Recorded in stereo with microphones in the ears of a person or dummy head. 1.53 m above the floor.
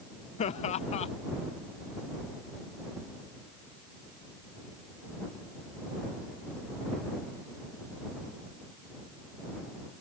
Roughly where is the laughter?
Left.